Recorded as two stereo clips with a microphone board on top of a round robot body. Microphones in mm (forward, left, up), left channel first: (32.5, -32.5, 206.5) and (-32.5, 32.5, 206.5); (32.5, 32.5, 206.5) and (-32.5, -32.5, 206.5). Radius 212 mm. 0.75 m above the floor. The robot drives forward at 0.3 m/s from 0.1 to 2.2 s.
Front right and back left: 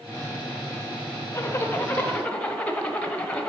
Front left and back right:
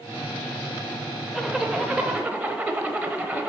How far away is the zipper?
About 0.9 m.